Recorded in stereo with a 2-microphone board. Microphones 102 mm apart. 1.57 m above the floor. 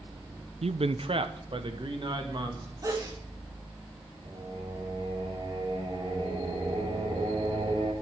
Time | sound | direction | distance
0.6 | a man speaking | 80° right | 0.5 m
2.8 | a sneeze | 35° right (ahead or behind) | 2.5 m
4.2 | singing | 60° right (ahead or behind) | 5 m